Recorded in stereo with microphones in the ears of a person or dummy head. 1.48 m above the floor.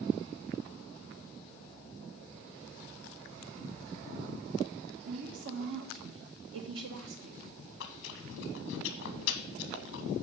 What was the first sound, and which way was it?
A woman speaking, 70° right (ahead or behind).